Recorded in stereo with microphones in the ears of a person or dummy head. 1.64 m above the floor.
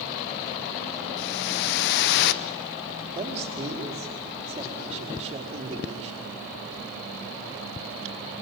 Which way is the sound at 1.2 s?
55° left (ahead or behind).